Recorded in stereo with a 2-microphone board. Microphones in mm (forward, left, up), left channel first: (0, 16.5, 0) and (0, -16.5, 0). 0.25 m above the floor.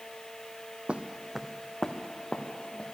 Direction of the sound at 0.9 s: 35° right (ahead or behind).